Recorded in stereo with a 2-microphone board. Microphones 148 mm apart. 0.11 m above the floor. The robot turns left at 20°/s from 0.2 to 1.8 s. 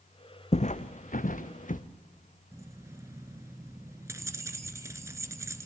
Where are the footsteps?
50° left (ahead or behind), 0.5 m; by 1.8 s 60° left (ahead or behind), 1.0 m.